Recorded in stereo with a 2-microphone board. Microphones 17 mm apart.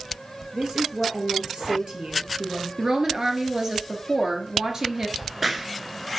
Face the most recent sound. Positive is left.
turn(degrees=-10)  # may be behind; listen again after turning